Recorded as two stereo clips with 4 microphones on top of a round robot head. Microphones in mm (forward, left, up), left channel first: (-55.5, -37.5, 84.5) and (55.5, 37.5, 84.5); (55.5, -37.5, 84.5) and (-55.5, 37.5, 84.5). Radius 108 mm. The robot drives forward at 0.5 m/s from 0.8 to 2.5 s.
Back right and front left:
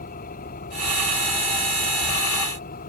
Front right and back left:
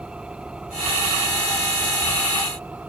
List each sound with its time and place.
0.0 s an engine running: 130° right; by 2.9 s 135° right